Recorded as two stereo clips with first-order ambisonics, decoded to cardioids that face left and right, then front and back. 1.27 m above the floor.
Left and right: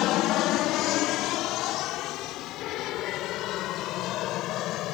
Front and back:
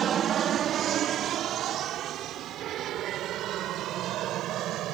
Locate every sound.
0.0 s an aircraft: 120° left; by 4.9 s 135° left